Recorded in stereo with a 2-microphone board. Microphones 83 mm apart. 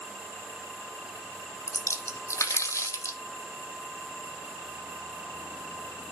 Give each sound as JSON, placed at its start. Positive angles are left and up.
{"t": 1.7, "sound": "a splash", "side_deg": 40, "distance_m": 0.7}